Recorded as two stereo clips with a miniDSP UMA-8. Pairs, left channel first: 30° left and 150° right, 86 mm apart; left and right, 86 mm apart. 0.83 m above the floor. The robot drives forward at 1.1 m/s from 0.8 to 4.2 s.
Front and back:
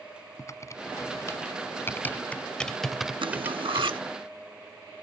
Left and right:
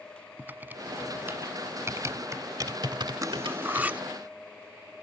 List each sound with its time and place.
0.4 s typing on a keyboard: 20° right; by 3.9 s 105° right
3.2 s cutlery clinking: 135° right; by 4.0 s 160° right